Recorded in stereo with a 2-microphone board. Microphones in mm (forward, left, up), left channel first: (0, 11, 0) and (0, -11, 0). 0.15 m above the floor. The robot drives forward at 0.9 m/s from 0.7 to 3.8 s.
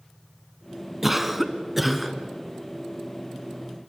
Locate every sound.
1.0 s a cough: 15° right (ahead or behind), 1.2 m; by 2.2 s 10° right (ahead or behind), 1.9 m